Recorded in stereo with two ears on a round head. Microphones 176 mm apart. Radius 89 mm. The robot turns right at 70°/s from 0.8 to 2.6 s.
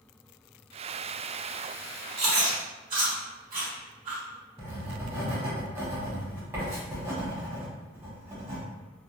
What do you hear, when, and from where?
2.2 s chewing: 55° right (ahead or behind), 1.1 m; by 4.2 s 45° right (ahead or behind), 1.1 m
4.6 s writing: 15° right (ahead or behind), 1.1 m